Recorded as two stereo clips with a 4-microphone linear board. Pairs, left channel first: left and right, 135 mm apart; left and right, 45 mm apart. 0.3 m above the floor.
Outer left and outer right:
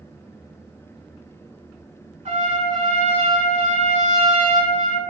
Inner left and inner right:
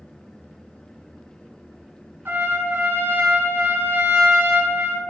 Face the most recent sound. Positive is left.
turn(degrees=-60)  # may be behind; listen again after turning